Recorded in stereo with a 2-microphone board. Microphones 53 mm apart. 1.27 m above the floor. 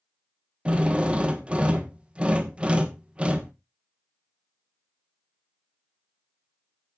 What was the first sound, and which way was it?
A drill, 20° right (ahead or behind).